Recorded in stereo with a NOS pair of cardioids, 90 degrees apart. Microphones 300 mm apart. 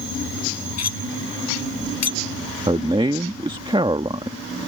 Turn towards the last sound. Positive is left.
turn(degrees=-20)